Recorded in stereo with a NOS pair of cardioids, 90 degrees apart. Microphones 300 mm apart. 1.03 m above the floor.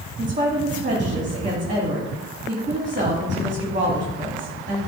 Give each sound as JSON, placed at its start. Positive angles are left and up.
{"t": 0.2, "sound": "a woman speaking", "azimuth_deg": -25, "distance_m": 2.0}